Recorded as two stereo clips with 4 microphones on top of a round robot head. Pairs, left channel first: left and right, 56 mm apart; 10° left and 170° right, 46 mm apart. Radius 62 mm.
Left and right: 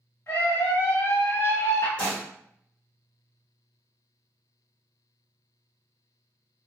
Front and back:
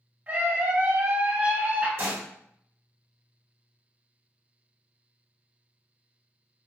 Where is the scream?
135° left, 1.3 m.